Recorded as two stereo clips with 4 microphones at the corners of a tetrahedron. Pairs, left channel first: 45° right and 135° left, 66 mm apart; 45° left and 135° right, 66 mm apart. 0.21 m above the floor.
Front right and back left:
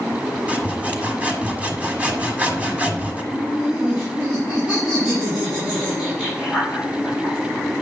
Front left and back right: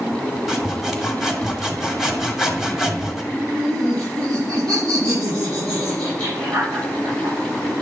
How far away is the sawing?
About 1.6 m.